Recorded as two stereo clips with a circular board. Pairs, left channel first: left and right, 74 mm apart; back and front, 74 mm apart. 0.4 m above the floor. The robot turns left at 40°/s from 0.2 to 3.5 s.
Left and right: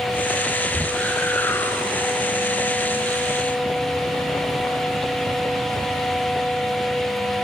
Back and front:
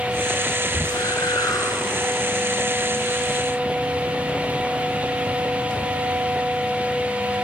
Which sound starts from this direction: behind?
A whoosh, at 0.7 s.